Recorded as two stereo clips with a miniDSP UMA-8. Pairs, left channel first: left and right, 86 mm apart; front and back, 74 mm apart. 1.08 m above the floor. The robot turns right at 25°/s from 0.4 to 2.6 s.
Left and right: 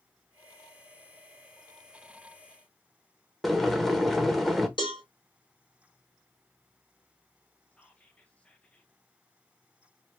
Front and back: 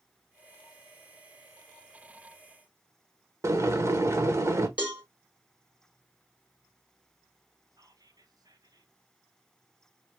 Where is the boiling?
175° left, 0.9 m.